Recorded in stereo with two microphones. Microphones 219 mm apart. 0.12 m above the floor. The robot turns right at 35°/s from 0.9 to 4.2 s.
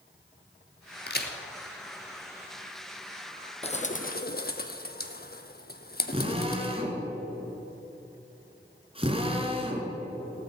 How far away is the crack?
About 1.3 m.